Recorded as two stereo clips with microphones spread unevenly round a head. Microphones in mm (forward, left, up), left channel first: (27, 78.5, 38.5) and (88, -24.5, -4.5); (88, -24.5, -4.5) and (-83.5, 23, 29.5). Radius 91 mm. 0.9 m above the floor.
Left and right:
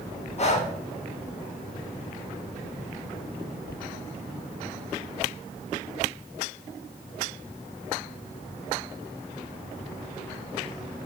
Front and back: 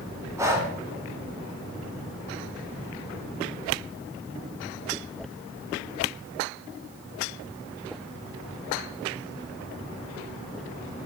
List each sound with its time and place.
0.4 s breathing: 85° left, 1.8 m